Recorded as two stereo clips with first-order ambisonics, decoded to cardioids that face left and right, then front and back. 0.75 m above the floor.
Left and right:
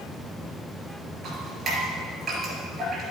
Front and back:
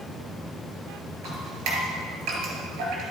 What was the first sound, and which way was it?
Dripping, 160° right.